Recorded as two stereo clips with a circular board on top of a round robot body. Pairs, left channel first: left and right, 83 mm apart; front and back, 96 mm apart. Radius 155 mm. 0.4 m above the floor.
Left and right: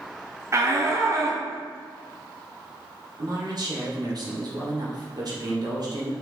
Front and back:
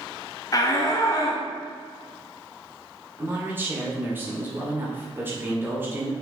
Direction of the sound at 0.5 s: 45° right.